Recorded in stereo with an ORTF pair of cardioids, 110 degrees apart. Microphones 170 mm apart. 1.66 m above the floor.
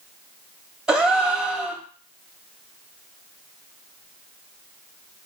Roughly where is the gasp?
Ahead.